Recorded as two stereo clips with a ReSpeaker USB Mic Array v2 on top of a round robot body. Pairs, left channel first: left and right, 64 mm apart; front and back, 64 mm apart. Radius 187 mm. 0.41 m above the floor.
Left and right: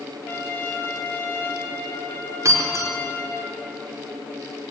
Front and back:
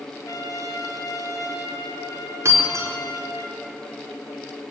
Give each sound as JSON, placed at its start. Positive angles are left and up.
{"t": 0.3, "sound": "a trumpet", "azimuth_deg": 35, "distance_m": 3.5}
{"t": 2.5, "sound": "breaking glass", "azimuth_deg": -130, "distance_m": 4.5}